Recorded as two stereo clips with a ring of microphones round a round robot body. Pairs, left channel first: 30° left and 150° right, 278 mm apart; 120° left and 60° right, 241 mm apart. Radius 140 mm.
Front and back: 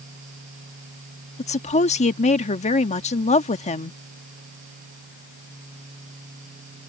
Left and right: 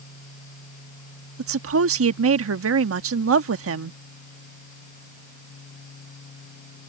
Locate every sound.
1.4 s a woman speaking: 35° right